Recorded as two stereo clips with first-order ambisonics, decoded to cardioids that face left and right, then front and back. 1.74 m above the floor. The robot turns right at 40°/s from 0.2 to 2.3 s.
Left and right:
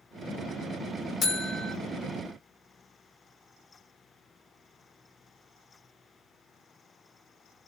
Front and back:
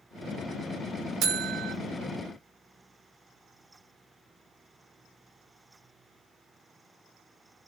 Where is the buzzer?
150° left, 0.6 m; by 1.8 s 175° left, 0.6 m.